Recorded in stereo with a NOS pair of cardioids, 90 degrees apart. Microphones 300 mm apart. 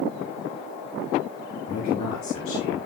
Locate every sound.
1.7 s a man speaking: 70° left, 9.5 m